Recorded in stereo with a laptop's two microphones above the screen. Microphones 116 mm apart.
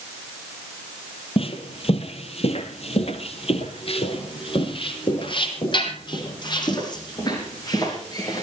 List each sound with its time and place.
1.4 s footsteps: 55° left (ahead or behind), 2 m; by 8.4 s 30° left (ahead or behind), 4 m